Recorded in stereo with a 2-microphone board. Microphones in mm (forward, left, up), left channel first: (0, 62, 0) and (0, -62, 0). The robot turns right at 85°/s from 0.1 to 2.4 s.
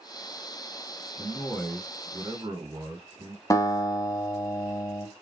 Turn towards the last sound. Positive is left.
turn(degrees=25)  # may be behind; listen again after turning